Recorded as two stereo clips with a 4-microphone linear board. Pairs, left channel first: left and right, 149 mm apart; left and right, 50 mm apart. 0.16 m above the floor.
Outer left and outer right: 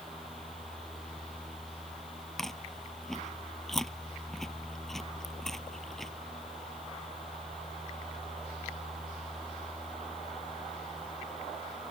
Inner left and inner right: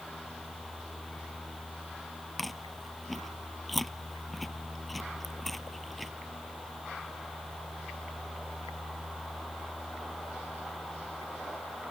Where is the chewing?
5° left (ahead or behind).